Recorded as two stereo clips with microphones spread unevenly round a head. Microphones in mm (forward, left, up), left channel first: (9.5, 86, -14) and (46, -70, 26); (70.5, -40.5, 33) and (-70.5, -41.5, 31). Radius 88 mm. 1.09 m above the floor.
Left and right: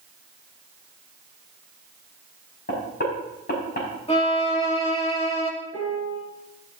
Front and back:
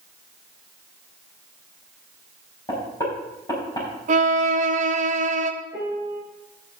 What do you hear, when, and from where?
2.7 s knocking: 70° left, 5 m
4.1 s a violin: 150° left, 1.4 m
5.7 s a piano: 100° left, 4.5 m